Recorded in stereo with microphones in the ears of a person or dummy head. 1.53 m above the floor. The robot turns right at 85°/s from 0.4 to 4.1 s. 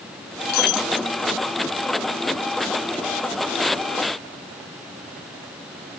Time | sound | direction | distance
0.5 | breaking glass | 50° left | ?